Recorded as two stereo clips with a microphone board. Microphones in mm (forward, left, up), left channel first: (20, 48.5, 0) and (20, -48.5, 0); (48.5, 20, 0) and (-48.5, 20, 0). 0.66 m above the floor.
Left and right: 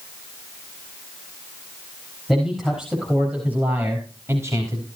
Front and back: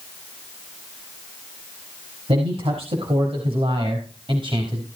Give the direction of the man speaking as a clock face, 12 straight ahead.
6 o'clock.